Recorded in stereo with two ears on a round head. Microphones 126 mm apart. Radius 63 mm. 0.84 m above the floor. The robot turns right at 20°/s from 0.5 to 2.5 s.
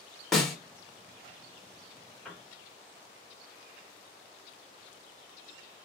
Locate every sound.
0.3 s a snare drum: centre (ahead or behind), 0.8 m; by 0.6 s 5° left (ahead or behind), 0.8 m
2.2 s a piano: 5° left (ahead or behind), 0.8 m